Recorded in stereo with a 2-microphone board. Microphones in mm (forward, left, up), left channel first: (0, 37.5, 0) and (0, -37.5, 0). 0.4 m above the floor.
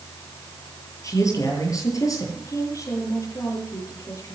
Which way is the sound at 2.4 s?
40° left (ahead or behind).